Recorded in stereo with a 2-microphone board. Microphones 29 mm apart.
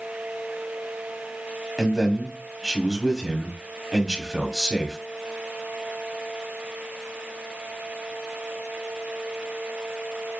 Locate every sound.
1.8 s a man speaking: 10° right (ahead or behind), 1.2 m